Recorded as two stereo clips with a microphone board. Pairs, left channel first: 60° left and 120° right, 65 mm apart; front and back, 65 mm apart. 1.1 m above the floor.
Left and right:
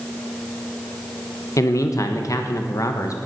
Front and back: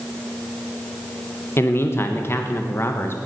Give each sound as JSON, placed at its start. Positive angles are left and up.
{"t": 1.6, "sound": "a man speaking", "azimuth_deg": 45, "distance_m": 1.3}